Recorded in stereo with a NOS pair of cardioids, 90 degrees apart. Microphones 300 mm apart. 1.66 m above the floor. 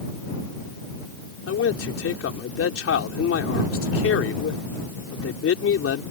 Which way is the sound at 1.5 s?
50° left.